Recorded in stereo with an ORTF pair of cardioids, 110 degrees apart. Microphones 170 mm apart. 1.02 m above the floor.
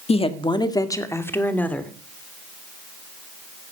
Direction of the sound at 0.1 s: 35° left.